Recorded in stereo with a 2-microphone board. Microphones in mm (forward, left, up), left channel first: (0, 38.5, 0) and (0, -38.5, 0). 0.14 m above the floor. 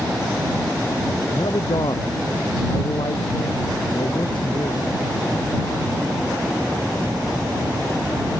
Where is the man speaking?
70° left (ahead or behind).